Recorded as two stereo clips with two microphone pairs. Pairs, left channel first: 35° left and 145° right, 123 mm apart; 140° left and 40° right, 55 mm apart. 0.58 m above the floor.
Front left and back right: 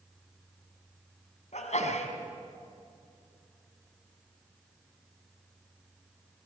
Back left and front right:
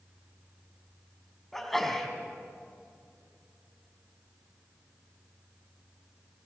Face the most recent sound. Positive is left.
turn(degrees=55)